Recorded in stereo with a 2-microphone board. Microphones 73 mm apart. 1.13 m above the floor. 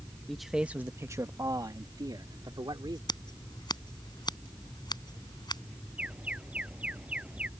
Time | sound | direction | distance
0.3 | a man speaking | 5° left (ahead or behind) | ?
3.1 | scissors | 80° left | ?
6.0 | an alarm | 15° right (ahead or behind) | ?